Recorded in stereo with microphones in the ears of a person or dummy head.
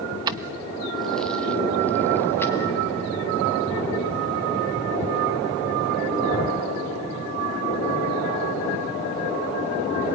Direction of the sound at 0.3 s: 25° right (ahead or behind).